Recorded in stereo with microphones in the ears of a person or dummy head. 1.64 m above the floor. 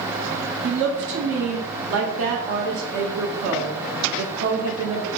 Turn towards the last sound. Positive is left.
turn(degrees=-65)  # may be behind; listen again after turning